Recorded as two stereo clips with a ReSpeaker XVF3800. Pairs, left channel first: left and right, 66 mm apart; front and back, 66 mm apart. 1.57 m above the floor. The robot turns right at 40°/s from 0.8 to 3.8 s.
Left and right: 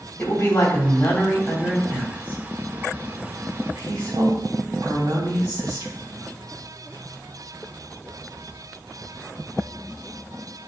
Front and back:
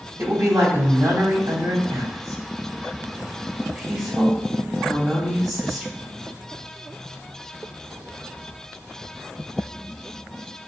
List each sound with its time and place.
0.2 s a woman speaking: 145° left, 3 m; by 5.9 s 95° right, 3 m